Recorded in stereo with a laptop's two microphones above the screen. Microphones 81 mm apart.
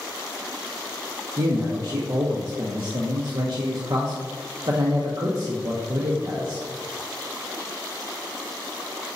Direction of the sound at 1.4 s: 60° right (ahead or behind).